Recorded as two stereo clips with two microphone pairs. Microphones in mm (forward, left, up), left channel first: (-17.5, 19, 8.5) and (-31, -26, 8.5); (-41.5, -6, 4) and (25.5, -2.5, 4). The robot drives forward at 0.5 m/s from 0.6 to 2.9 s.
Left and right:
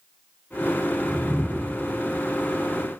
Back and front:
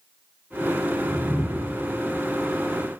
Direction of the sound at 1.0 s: Straight ahead.